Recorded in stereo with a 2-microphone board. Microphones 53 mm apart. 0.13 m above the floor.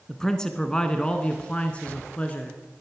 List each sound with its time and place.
0.1 s a man speaking: 10° left (ahead or behind), 1.4 m; by 2.6 s 25° left (ahead or behind), 1.6 m